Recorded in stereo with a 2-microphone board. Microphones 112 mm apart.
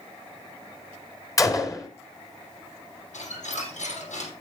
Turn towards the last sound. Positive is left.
turn(degrees=85)